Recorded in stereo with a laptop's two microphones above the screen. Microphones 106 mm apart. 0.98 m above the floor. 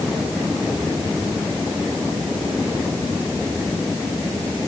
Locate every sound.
Only background noise.